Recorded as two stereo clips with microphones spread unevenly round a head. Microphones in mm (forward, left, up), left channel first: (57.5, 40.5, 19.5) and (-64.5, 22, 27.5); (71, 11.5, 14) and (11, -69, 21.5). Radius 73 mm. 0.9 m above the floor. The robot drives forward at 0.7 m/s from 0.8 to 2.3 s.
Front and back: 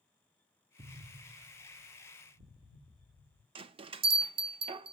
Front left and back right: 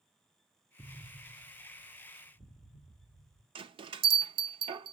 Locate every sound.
0.8 s an explosion: 135° left, 0.7 m; by 3.5 s 165° left, 1.6 m
3.5 s a bell: 140° right, 0.5 m